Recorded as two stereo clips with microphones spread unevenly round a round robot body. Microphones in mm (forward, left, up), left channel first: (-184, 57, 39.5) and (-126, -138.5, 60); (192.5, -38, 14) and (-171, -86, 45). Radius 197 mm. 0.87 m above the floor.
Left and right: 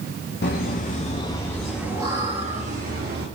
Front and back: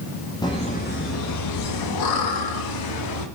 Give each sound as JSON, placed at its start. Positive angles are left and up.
{"t": 0.4, "sound": "laughter", "azimuth_deg": 85, "distance_m": 1.5}